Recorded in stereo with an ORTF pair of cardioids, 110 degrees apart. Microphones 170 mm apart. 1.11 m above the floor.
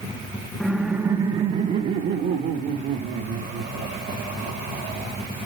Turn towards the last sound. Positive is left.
turn(degrees=-75)